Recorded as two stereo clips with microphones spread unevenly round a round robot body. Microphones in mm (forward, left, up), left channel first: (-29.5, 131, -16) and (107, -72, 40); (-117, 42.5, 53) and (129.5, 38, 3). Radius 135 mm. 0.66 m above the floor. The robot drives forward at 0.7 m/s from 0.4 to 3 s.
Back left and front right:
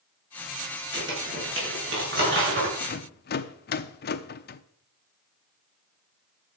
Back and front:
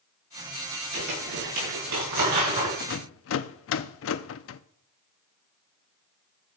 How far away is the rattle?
About 0.6 m.